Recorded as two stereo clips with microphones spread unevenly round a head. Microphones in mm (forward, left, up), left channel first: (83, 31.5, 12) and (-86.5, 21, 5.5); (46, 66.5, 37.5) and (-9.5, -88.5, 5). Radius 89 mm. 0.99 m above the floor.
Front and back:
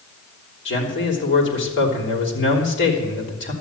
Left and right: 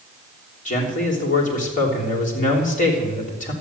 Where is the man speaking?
20° left, 3.5 m.